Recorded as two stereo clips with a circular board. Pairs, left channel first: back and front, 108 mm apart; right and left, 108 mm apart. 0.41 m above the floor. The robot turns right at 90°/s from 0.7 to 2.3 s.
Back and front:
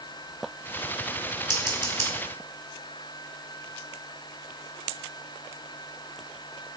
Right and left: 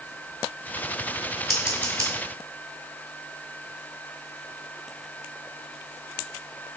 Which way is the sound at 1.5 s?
5° right.